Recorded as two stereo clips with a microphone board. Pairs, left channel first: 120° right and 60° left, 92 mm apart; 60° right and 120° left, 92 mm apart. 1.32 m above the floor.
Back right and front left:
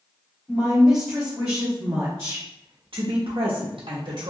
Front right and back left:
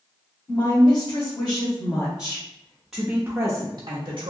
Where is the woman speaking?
25° right, 1.6 m; by 4.3 s 95° left, 0.9 m.